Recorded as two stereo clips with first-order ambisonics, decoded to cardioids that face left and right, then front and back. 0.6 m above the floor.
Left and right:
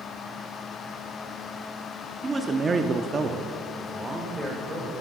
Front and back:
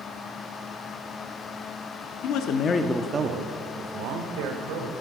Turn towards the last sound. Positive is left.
turn(degrees=-170)